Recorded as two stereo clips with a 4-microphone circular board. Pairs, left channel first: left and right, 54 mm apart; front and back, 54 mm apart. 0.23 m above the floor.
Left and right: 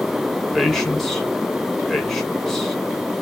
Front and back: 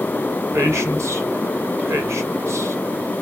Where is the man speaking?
175° left, 1.9 m.